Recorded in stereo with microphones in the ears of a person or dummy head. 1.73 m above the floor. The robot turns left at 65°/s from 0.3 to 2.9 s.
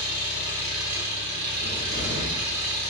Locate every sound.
0.0 s an engine running: 30° left, 1.4 m; by 2.9 s 140° right, 1.4 m
1.6 s a cupboard door: straight ahead, 1.9 m; by 2.4 s 50° right, 1.9 m